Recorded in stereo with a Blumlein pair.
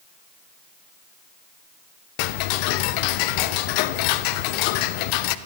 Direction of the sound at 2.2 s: 45° left.